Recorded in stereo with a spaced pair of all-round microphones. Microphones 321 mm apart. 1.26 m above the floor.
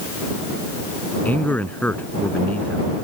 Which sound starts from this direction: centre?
A man speaking, at 1.2 s.